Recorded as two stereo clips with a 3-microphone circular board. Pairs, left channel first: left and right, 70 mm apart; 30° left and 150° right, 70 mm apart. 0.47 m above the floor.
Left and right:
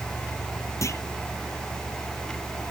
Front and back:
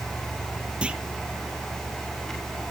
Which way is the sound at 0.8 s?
135° left.